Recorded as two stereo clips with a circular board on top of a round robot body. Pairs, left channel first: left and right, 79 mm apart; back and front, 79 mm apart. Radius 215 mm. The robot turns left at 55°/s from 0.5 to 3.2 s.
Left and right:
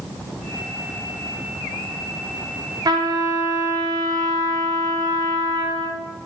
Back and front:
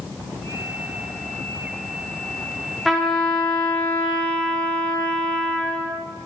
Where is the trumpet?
90° right, 1.2 m; by 6.0 s 110° right, 1.2 m.